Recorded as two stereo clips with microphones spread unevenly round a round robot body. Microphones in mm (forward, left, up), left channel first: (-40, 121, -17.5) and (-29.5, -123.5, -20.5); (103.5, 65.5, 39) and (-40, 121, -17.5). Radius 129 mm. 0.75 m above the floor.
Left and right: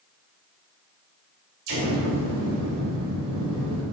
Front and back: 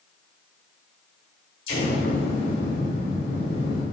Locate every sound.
1.7 s an explosion: 50° right, 2.5 m